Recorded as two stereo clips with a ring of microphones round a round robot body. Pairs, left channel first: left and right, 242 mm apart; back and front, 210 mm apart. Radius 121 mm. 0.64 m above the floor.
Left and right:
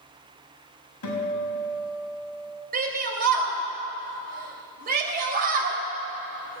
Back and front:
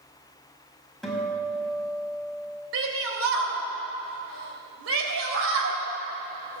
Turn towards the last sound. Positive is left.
turn(degrees=-35)